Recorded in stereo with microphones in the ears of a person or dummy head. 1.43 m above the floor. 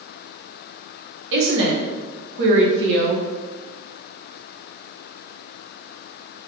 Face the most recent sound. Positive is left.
turn(degrees=-70)  # may be behind; listen again after turning